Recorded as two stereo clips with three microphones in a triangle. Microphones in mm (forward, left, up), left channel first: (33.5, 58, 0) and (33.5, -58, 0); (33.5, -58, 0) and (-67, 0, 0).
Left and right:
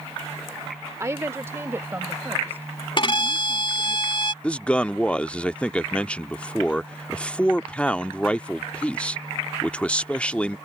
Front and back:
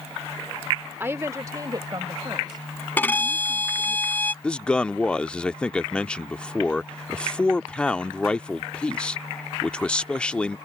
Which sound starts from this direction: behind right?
A woman speaking, at 1.0 s.